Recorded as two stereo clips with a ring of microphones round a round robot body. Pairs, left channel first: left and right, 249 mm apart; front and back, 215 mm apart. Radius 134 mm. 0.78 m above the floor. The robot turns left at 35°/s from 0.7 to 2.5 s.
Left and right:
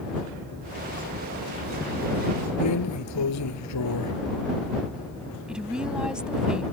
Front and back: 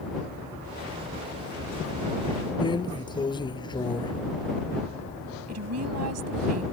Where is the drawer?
70° left.